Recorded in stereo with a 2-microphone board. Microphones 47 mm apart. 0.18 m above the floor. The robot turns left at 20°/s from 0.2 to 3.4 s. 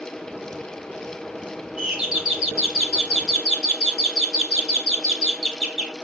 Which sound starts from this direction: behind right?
A doorbell, at 1.8 s.